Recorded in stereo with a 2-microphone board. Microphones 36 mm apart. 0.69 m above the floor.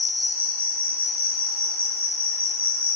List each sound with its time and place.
0.0 s an insect: 75° right (ahead or behind), 2.5 m